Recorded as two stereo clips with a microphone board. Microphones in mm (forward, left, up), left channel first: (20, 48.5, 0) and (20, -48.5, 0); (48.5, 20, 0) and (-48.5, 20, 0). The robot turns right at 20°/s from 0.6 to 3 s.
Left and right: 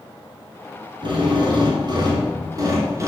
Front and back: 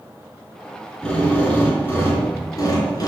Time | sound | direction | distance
1.0 | a drill | 80° right | 2.5 m